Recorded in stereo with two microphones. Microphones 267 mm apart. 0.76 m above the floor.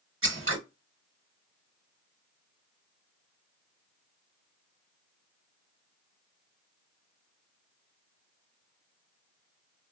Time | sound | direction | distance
0.2 | scissors | 50° right (ahead or behind) | 1.0 m